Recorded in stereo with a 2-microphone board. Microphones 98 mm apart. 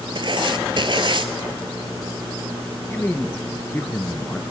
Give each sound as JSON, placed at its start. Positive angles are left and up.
{"t": 0.1, "sound": "writing", "side_deg": -55, "distance_m": 0.7}
{"t": 2.9, "sound": "a man speaking", "side_deg": 20, "distance_m": 1.4}